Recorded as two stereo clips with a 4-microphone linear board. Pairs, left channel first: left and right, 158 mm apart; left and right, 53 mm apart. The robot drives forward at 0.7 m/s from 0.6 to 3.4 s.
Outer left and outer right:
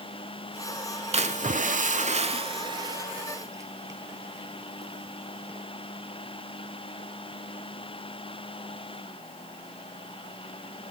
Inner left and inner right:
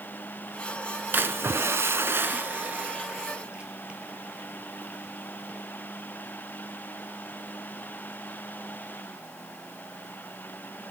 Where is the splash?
45° right (ahead or behind), 0.7 m; by 5.7 s 20° right (ahead or behind), 1.3 m.